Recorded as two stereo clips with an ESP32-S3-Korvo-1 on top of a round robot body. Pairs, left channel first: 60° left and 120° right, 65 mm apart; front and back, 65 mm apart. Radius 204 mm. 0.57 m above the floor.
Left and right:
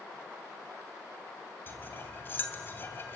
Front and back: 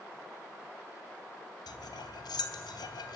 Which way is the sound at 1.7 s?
Straight ahead.